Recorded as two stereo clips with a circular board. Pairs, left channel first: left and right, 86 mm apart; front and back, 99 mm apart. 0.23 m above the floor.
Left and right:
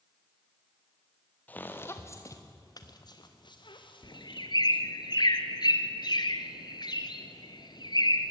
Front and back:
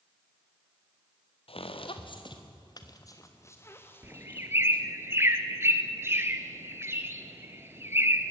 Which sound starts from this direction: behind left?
A bird, at 4.0 s.